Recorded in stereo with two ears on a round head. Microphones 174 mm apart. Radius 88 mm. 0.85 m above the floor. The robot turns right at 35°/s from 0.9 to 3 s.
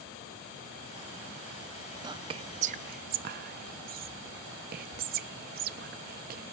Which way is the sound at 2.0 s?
20° right (ahead or behind).